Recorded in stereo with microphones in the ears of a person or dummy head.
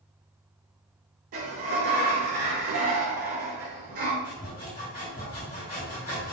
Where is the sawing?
40° left (ahead or behind), 1.7 m.